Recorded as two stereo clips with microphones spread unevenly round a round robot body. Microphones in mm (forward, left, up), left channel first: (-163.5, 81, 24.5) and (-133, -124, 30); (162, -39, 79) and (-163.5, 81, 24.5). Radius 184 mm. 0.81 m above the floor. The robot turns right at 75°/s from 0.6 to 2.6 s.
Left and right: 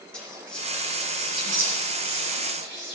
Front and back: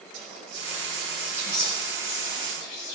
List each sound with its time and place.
0.1 s whispering: 175° right, 3 m; by 3.0 s 25° right, 3 m